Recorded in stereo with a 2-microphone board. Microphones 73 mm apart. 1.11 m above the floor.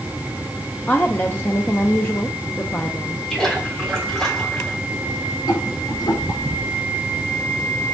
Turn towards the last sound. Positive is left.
turn(degrees=75)  # may be behind; listen again after turning